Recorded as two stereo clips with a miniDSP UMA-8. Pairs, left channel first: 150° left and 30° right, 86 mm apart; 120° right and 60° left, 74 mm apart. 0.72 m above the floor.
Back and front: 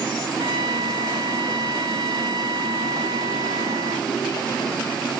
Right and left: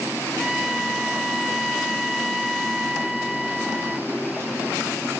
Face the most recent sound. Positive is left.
turn(degrees=-25)